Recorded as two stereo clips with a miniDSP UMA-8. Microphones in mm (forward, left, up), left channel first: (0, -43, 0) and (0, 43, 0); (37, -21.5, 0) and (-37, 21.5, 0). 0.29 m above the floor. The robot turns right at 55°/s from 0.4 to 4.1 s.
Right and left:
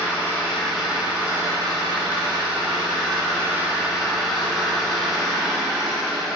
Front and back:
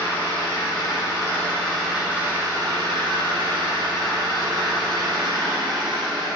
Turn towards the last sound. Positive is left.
turn(degrees=-175)